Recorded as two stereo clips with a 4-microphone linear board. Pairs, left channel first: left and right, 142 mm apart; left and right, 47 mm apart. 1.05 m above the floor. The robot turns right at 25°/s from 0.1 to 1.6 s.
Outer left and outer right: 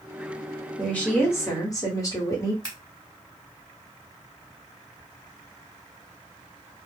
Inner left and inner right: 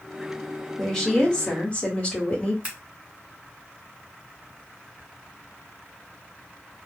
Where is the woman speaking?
5° left (ahead or behind), 1.2 m; by 2.5 s 25° left (ahead or behind), 1.2 m.